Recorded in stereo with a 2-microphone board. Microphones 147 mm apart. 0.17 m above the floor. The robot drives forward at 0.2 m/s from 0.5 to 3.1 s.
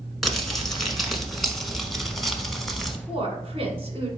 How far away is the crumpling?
About 1.0 m.